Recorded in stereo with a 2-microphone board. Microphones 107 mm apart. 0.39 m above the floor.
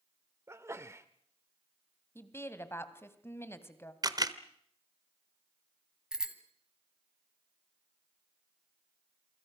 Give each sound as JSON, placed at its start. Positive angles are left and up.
{"t": 0.5, "sound": "a sneeze", "side_deg": -25, "distance_m": 0.9}
{"t": 2.1, "sound": "a woman speaking", "side_deg": 20, "distance_m": 2.0}
{"t": 4.0, "sound": "a camera shutter", "side_deg": -35, "distance_m": 1.1}
{"t": 6.1, "sound": "a bicycle bell", "side_deg": -5, "distance_m": 2.0}